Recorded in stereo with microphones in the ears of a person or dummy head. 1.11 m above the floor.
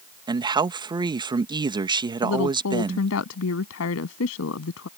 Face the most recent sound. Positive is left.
turn(degrees=80)